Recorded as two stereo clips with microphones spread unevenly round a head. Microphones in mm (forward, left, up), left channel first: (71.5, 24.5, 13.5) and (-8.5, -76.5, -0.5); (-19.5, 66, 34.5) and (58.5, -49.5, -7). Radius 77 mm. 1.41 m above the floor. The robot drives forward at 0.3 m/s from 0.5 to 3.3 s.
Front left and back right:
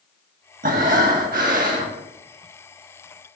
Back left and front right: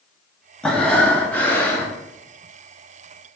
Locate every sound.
0.6 s breathing: 160° right, 1.3 m; by 2.0 s 165° right, 1.7 m